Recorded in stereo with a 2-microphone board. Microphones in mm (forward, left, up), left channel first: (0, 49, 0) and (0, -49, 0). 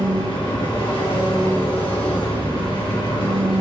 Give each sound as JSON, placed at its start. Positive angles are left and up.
{"t": 0.0, "sound": "an engine running", "side_deg": 70, "distance_m": 5.0}